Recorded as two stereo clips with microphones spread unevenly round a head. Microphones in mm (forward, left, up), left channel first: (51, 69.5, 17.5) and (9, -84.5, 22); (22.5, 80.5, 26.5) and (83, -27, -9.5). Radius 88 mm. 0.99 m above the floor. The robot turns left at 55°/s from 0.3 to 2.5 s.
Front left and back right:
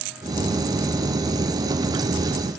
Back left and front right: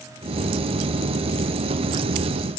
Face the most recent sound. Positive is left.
No sound to turn to.